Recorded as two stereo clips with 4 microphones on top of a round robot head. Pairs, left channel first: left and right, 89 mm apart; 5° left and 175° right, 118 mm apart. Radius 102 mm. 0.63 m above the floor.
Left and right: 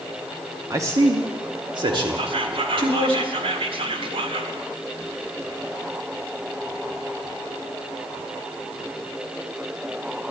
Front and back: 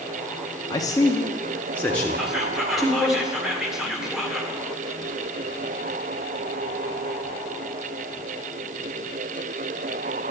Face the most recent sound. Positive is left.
turn(degrees=-90)